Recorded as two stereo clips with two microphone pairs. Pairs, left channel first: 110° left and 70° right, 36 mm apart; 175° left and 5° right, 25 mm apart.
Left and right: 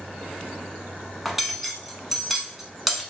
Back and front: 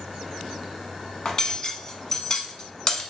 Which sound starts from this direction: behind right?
Cutlery clinking, at 1.2 s.